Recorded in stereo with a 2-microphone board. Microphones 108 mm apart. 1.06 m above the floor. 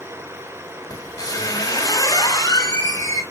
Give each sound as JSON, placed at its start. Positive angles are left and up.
{"t": 0.9, "sound": "a squeak", "side_deg": 35, "distance_m": 3.0}